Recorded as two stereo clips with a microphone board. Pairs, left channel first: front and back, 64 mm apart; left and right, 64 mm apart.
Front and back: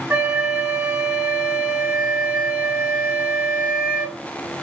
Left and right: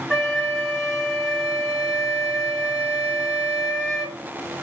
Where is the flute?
175° left, 1.2 m.